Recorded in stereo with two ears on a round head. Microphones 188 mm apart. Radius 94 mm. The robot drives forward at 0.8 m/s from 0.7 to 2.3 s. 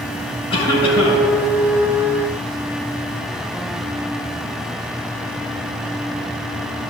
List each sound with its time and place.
0.5 s a cough: 25° left (ahead or behind), 5 m; by 1.3 s 30° left (ahead or behind), 4.5 m